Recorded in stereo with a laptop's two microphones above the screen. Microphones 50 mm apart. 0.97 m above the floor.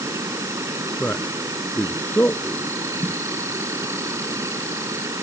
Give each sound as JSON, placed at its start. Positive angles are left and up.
{"t": 0.0, "sound": "an insect", "side_deg": -85}
{"t": 1.0, "sound": "a man speaking", "side_deg": 40}
{"t": 3.0, "sound": "a snare drum", "side_deg": -50}